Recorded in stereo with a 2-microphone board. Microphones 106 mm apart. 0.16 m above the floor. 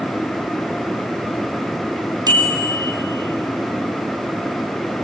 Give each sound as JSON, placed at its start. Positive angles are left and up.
{"t": 2.3, "sound": "a bicycle bell", "side_deg": -40, "distance_m": 3.5}